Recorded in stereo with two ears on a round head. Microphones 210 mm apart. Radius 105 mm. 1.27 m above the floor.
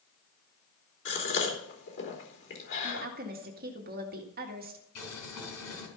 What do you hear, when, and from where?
1.1 s a gasp: 55° left (ahead or behind), 3.5 m
2.8 s a woman speaking: 40° right (ahead or behind), 2.0 m
5.0 s boiling: 75° left (ahead or behind), 4.5 m